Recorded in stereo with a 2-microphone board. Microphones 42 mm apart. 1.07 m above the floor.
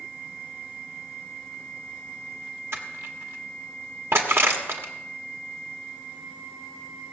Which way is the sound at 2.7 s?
80° right.